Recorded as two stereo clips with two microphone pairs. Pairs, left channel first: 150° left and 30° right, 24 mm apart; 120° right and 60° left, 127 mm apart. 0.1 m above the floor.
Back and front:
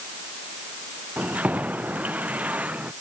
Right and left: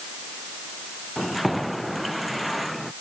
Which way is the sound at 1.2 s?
30° right.